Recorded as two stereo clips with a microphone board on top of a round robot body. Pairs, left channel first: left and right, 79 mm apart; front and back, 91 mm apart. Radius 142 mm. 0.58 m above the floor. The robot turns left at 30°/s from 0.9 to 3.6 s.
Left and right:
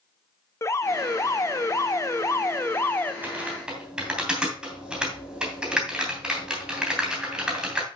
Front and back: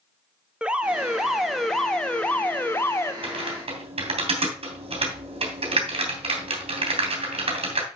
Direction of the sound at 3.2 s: 160° right.